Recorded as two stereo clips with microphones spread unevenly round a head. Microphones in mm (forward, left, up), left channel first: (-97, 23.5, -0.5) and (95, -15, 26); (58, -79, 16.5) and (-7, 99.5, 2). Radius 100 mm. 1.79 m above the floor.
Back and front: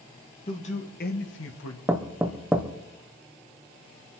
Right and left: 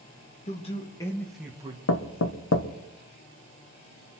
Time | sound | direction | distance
0.5 | a man speaking | 130° right | 2.5 m
1.9 | knocking | 90° right | 1.1 m